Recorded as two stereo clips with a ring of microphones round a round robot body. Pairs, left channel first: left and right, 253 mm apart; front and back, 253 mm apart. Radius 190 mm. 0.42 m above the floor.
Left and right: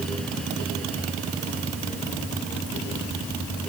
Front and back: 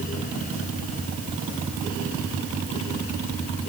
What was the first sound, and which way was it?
Only background noise.